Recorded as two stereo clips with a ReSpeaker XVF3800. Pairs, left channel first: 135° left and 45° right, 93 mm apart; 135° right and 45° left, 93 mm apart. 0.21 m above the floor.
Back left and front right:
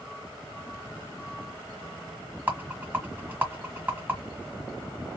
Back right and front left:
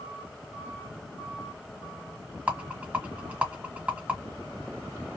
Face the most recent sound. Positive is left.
turn(degrees=-5)